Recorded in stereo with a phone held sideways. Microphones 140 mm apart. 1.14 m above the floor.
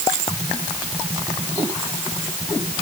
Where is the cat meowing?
I don't hear a cat meowing.